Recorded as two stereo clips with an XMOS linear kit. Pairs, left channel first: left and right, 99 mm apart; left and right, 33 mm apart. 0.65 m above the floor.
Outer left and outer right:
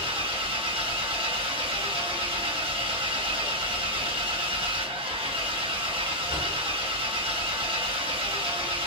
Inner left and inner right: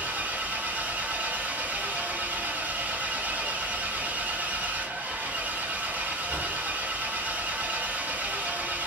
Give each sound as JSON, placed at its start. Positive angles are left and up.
{"t": 0.0, "sound": "an engine running", "side_deg": -65, "distance_m": 1.1}